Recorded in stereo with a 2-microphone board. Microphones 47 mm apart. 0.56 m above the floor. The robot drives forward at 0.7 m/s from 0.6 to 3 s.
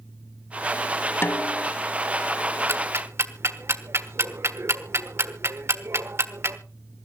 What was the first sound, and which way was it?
A snare drum, 50° left (ahead or behind).